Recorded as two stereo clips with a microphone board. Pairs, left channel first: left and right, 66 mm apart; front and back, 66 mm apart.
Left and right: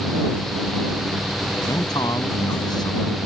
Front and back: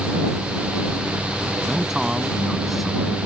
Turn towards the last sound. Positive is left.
turn(degrees=90)